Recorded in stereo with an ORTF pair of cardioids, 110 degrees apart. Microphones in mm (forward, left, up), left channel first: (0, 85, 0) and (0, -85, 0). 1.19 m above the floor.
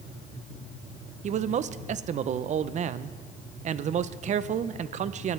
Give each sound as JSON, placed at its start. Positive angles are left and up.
{"t": 1.2, "sound": "a man speaking", "azimuth_deg": -45, "distance_m": 0.5}